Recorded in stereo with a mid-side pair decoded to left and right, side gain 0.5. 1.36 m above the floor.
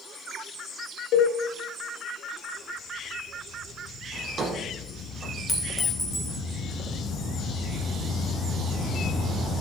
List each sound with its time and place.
1.1 s a cowbell: 70° left, 1.8 m
4.1 s a drawer: 40° right, 3.5 m
5.5 s a clink: 5° left, 3 m